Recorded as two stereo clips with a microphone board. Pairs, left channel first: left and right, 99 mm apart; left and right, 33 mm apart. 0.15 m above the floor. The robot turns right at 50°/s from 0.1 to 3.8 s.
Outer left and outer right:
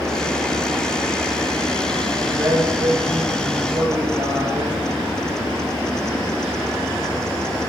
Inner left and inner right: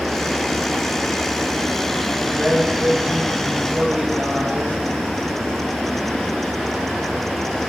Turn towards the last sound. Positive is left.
turn(degrees=-55)